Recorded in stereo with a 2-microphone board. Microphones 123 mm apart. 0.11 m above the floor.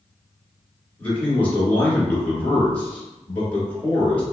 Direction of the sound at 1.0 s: 15° left (ahead or behind).